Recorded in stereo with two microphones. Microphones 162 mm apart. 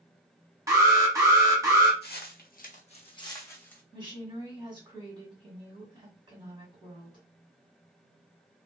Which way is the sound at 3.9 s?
30° right (ahead or behind).